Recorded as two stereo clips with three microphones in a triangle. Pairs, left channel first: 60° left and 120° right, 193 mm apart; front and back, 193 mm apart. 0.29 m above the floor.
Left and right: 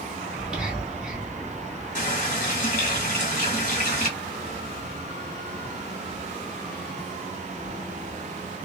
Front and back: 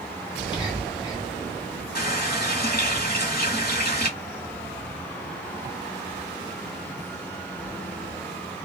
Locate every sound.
0.3 s whispering: 40° right, 1.7 m
1.9 s a running tap: 20° left, 1.4 m